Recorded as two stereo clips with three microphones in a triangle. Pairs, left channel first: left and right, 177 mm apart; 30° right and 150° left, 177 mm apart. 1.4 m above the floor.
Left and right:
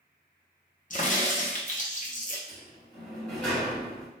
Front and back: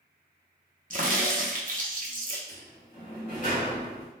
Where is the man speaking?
No man speaking in this recording.